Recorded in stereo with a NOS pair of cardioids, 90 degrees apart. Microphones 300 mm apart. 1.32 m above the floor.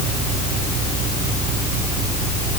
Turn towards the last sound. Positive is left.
No sound to turn to.